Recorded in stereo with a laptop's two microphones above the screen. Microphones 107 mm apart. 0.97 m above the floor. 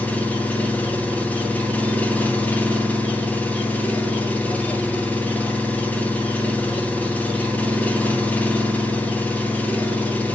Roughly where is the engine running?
Centre.